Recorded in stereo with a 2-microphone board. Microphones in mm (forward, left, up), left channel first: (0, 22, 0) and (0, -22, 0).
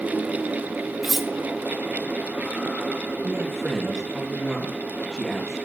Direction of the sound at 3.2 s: 5° left (ahead or behind).